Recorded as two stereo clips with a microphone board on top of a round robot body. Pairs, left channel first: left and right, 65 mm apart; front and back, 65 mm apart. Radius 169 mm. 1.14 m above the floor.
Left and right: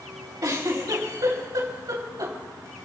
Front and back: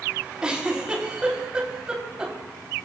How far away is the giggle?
About 4 m.